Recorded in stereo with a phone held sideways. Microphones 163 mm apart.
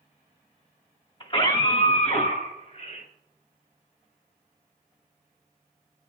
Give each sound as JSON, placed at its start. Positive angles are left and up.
{"t": 1.2, "sound": "a scream", "side_deg": 35, "distance_m": 2.5}